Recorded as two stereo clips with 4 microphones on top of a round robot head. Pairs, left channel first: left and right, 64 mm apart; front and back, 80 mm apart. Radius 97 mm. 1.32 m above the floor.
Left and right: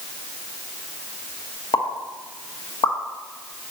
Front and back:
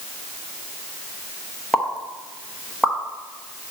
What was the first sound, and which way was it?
A pop, 90° left.